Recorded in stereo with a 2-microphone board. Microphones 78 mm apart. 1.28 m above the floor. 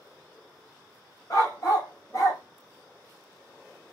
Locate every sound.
1.3 s a dog barking: 45° left (ahead or behind), 1.5 m